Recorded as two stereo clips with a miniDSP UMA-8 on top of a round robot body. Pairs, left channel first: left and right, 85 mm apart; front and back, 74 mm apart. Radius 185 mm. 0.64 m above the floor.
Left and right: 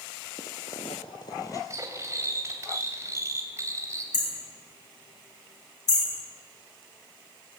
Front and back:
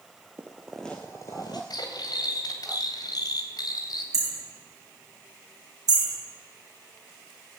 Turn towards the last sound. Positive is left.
turn(degrees=140)